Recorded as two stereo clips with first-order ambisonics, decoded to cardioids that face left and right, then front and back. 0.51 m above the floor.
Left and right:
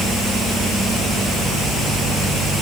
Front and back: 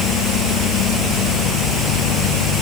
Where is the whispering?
I don't hear whispering.